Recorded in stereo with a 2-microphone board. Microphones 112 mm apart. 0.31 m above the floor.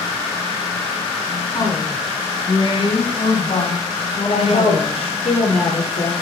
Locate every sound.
1.5 s a woman speaking: 35° left (ahead or behind), 3.5 m; by 5.2 s 55° left (ahead or behind), 3 m
4.2 s a woman speaking: 75° left (ahead or behind), 6 m